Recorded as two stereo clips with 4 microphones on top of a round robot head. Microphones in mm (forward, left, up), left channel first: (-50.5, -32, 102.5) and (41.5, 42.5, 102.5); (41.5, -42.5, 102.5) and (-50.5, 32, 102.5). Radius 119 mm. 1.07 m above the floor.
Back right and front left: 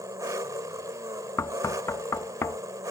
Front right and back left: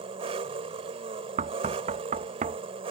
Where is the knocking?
155° left.